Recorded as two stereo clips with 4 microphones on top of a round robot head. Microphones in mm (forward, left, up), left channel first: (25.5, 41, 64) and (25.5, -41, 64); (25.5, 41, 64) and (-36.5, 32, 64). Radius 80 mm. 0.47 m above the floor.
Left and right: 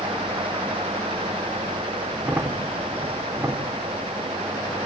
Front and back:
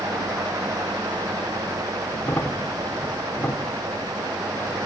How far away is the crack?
About 1.5 m.